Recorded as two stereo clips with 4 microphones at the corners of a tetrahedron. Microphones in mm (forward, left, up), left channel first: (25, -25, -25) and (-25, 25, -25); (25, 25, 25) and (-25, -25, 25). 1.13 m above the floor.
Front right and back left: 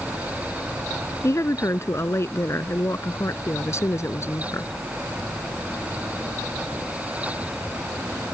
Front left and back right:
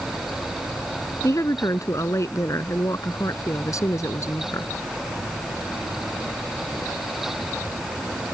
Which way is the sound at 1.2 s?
5° left.